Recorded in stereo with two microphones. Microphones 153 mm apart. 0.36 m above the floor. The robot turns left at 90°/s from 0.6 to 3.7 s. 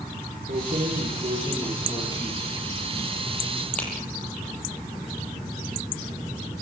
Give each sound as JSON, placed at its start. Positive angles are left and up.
{"t": 0.5, "sound": "keys jangling", "side_deg": -70, "distance_m": 9.0}